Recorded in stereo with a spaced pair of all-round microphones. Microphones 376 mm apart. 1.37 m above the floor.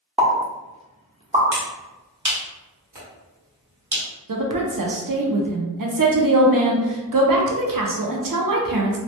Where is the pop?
15° right (ahead or behind), 0.6 m.